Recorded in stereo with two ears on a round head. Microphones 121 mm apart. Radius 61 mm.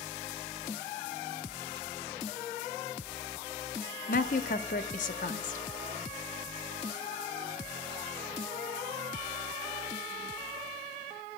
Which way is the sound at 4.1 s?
70° left (ahead or behind).